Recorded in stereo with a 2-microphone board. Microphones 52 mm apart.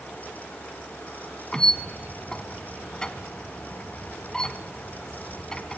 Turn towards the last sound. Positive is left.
turn(degrees=15)  # may be behind; listen again after turning